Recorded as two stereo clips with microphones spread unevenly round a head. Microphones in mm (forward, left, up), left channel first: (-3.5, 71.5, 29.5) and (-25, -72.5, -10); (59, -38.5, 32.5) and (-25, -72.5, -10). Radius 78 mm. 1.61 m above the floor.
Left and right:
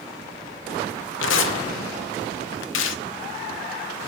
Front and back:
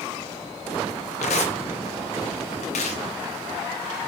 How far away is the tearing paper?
About 0.9 m.